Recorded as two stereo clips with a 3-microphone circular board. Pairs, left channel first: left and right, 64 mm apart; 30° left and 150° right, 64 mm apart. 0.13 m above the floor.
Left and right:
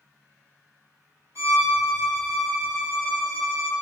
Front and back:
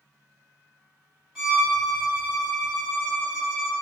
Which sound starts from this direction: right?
A violin, at 1.4 s.